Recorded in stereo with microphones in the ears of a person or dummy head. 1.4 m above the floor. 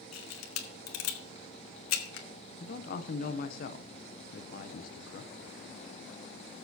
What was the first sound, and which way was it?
A camera shutter, 75° left (ahead or behind).